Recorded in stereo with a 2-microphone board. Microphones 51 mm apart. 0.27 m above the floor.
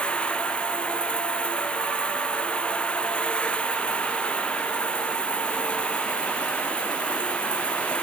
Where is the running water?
20° left (ahead or behind).